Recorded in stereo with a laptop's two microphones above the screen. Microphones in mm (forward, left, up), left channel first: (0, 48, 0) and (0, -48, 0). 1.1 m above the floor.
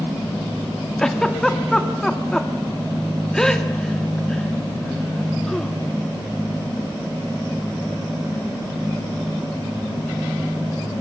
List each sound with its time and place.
1.0 s a giggle: 5° left (ahead or behind), 1.9 m